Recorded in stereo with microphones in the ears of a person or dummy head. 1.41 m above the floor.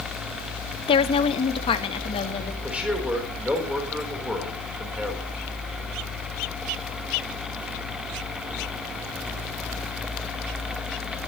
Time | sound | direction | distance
0.9 | a woman speaking | 30° left (ahead or behind) | 0.8 m
2.6 | a man speaking | centre (ahead or behind) | 4 m